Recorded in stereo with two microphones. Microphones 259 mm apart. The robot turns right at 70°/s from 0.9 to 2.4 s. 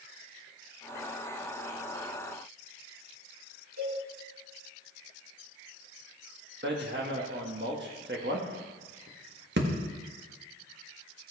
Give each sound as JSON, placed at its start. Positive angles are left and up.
{"t": 3.8, "sound": "a cowbell", "side_deg": -85, "distance_m": 6.0}
{"t": 6.6, "sound": "hammering", "side_deg": -45, "distance_m": 1.6}